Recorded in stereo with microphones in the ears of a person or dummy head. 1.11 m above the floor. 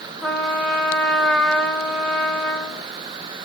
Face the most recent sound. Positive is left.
turn(degrees=0)  # may be behind; listen again after turning